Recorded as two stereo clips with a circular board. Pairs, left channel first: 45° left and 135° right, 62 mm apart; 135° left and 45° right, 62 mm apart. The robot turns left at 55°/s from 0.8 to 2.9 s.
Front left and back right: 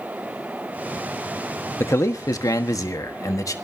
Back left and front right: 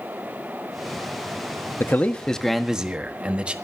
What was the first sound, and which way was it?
A man speaking, 85° left.